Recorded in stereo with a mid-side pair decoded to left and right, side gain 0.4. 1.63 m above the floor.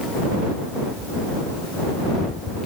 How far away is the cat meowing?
I don't hear a cat meowing.